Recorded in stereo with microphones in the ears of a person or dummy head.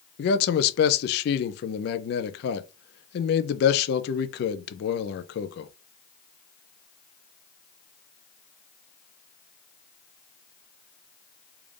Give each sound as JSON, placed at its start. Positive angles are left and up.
{"t": 0.2, "sound": "a man speaking", "side_deg": 60, "distance_m": 0.6}